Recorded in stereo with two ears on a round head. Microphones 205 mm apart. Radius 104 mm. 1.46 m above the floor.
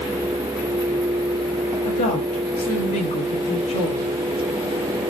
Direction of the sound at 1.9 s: 35° left (ahead or behind).